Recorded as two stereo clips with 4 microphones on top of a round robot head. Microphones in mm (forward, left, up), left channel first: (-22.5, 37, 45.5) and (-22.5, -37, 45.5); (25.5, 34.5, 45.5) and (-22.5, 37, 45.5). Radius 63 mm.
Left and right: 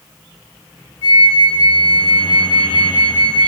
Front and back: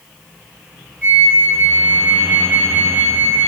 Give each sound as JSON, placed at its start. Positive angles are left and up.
{"t": 1.0, "sound": "a flute", "azimuth_deg": 65, "distance_m": 4.0}